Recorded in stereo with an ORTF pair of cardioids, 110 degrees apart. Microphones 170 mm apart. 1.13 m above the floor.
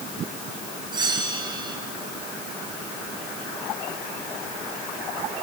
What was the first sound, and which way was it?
A bell, 25° right.